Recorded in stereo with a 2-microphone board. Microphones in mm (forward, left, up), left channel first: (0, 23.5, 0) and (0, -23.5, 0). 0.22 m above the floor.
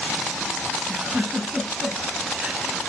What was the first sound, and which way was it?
A giggle, 20° right (ahead or behind).